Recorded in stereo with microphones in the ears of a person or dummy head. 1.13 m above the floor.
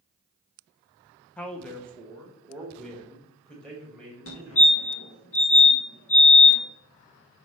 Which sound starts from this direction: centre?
A man speaking, at 1.4 s.